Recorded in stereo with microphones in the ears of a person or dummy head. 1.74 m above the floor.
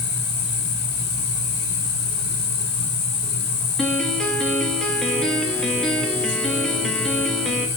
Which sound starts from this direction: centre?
A piano, at 3.8 s.